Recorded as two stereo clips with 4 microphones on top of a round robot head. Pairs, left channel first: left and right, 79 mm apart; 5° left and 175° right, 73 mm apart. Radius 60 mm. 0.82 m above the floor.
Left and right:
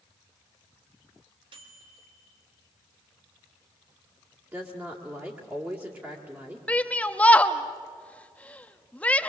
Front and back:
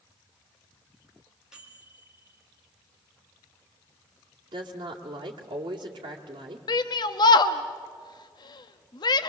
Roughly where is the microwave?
Right.